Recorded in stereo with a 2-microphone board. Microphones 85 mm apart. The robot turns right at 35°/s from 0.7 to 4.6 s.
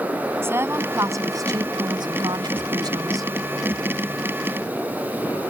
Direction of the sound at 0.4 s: 145° right.